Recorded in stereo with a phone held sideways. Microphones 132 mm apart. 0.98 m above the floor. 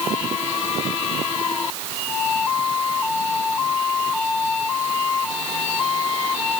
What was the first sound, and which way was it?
Only background noise.